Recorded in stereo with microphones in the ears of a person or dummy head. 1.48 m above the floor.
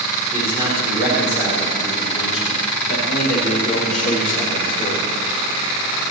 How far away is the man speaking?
About 5.5 m.